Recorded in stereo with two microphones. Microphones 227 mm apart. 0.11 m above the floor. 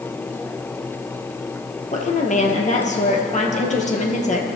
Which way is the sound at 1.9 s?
30° left (ahead or behind).